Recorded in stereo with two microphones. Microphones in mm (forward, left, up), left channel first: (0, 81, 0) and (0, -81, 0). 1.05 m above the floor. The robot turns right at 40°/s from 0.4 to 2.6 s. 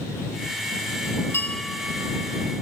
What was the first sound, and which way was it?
A bell, 165° left.